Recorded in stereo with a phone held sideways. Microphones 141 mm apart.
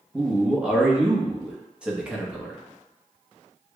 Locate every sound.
0.1 s a man speaking: 5° right (ahead or behind), 0.8 m